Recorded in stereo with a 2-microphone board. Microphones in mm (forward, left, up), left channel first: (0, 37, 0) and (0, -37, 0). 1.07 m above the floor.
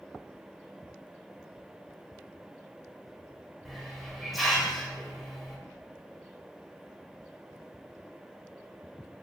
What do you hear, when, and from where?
3.6 s a hiss: centre (ahead or behind), 0.7 m